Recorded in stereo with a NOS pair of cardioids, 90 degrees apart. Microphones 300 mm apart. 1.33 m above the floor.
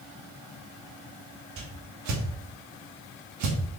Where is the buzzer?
I don't hear a buzzer.